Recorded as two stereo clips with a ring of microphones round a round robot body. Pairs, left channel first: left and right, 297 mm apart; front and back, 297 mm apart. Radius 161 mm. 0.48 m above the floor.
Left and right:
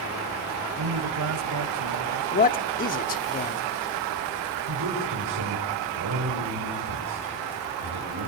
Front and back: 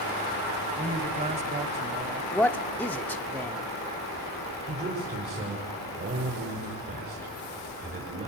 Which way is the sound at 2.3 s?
75° left.